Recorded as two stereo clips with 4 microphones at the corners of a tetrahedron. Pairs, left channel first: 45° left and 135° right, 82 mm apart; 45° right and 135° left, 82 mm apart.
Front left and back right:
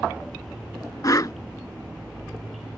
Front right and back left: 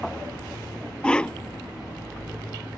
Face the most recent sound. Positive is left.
turn(degrees=30)